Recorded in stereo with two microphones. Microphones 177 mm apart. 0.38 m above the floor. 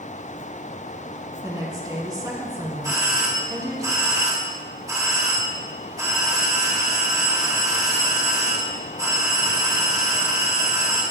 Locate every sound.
1.4 s a woman speaking: 20° right (ahead or behind), 3 m
2.8 s a doorbell: 20° right (ahead or behind), 5 m